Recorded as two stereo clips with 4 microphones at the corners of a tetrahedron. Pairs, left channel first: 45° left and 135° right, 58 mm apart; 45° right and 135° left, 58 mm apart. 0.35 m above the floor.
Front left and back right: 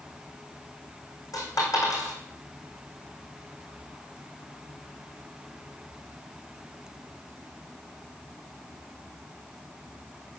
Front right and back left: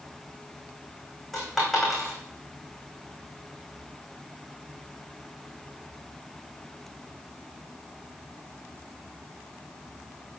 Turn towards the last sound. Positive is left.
turn(degrees=40)